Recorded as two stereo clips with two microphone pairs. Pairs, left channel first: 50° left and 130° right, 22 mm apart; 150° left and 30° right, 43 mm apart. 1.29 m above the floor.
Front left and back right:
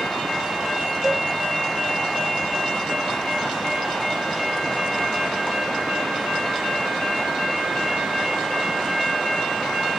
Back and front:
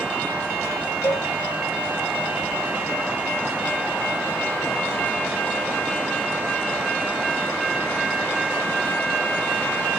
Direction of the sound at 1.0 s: 145° left.